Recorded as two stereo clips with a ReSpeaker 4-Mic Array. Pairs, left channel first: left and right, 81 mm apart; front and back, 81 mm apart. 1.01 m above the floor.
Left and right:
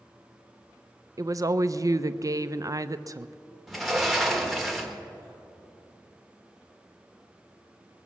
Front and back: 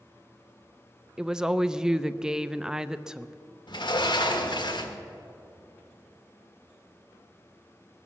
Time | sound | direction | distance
1.2 | a woman speaking | 105° right | 0.5 m
3.7 | a sliding door | straight ahead | 1.4 m